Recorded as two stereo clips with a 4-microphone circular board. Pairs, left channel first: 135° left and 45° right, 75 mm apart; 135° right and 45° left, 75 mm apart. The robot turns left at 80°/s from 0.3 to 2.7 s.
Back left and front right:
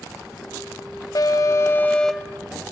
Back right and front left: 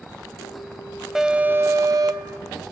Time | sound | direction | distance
1.1 | an alarm | 130° left | 1.0 m